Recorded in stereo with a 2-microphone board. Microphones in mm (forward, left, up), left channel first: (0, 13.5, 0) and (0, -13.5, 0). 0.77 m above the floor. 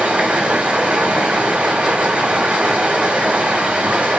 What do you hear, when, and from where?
0.0 s running water: 45° right (ahead or behind), 2.5 m